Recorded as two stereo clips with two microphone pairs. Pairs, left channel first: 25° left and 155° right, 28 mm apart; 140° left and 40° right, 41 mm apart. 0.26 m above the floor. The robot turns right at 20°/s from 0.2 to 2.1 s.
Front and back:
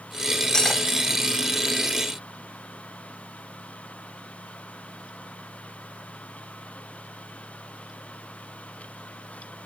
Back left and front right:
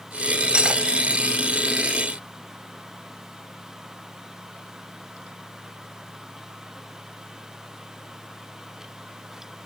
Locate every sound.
0.5 s cutlery clinking: 10° right, 0.7 m; by 0.8 s 5° right, 0.7 m